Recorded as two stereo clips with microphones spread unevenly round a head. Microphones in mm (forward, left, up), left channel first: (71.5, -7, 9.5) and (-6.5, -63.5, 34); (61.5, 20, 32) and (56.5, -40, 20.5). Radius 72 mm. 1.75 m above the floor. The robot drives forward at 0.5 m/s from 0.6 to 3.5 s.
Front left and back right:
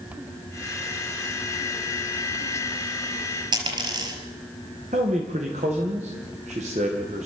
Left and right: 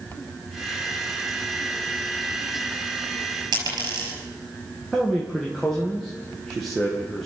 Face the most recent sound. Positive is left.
turn(degrees=170)